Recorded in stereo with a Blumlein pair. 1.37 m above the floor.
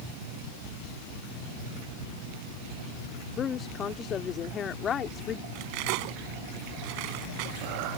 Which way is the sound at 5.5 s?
45° right.